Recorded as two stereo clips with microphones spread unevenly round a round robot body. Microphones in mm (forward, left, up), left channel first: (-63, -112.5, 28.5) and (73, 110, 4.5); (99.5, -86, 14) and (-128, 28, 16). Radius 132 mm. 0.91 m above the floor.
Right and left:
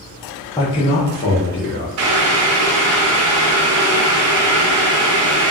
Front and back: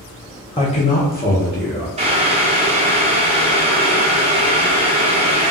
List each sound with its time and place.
0.6 s a man speaking: 50° right, 0.5 m; by 1.9 s 70° right, 1.1 m
2.0 s boiling: 85° left, 0.5 m